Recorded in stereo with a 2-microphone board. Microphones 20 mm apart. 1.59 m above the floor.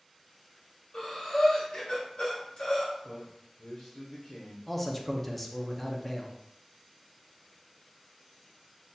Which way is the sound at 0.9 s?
50° left (ahead or behind).